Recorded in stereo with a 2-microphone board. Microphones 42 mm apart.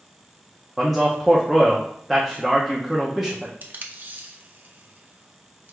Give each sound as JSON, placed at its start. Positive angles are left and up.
{"t": 0.8, "sound": "a man speaking", "side_deg": -5, "distance_m": 0.6}
{"t": 3.6, "sound": "tape being pulled", "side_deg": -45, "distance_m": 0.6}